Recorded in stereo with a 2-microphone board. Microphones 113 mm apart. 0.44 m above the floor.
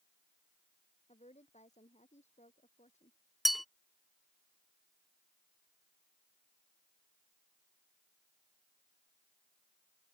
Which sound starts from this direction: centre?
A bell, at 3.5 s.